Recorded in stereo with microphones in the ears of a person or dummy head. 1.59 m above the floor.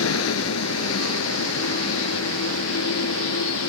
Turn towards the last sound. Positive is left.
turn(degrees=80)